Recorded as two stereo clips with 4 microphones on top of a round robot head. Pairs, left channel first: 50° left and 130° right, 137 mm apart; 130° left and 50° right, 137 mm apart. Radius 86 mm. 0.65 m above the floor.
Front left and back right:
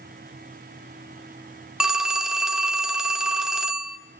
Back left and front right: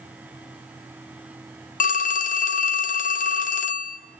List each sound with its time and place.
1.8 s a phone ringing: 145° left, 1.3 m